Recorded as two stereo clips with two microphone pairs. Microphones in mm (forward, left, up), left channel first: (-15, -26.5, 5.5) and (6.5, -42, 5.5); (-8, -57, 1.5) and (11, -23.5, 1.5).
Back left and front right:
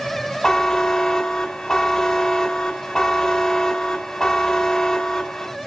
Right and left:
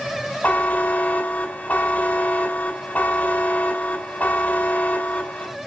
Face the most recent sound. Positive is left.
turn(degrees=-150)